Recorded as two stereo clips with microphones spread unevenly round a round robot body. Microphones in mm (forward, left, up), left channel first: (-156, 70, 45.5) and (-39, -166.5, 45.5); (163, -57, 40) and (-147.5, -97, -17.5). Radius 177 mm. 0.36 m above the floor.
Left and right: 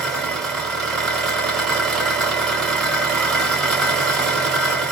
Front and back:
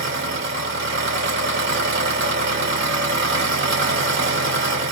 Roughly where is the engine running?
Behind right.